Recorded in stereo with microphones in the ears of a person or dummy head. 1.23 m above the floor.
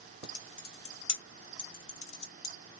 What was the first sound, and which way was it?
Typing on a keyboard, 80° left.